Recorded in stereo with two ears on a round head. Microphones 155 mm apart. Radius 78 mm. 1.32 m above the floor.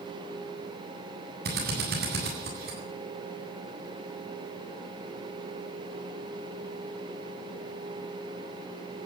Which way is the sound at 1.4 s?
60° right (ahead or behind).